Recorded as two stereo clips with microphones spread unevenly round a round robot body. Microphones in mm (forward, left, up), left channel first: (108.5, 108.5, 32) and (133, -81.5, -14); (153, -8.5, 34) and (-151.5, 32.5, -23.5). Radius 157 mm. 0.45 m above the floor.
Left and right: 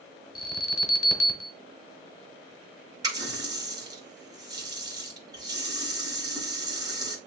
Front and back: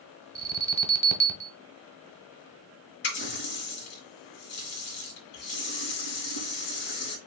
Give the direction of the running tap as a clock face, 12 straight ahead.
12 o'clock.